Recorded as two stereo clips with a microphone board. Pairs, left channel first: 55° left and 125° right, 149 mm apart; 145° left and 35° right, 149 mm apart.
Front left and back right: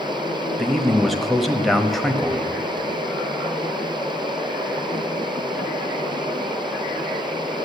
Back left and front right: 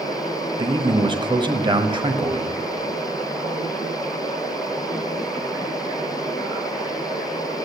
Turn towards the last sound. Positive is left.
turn(degrees=-30)